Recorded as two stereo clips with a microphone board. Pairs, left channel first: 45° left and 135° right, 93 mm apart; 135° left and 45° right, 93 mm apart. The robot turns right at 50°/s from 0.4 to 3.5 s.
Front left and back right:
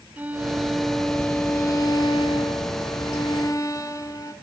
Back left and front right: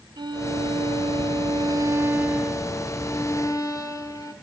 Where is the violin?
65° right, 2.0 m; by 4.3 s 90° left, 2.0 m.